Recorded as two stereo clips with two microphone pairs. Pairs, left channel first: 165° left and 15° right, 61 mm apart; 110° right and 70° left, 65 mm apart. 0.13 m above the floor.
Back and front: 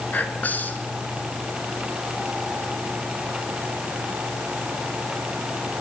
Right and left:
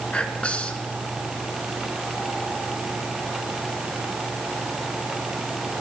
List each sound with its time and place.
0.1 s whispering: 165° right, 1.6 m